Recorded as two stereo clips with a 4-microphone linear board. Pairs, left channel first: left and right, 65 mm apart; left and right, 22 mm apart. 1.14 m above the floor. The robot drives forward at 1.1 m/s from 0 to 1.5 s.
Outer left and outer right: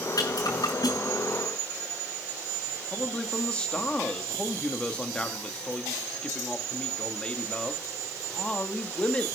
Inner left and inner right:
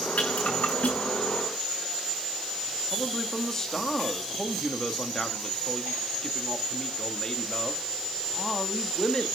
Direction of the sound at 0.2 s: 70° left (ahead or behind).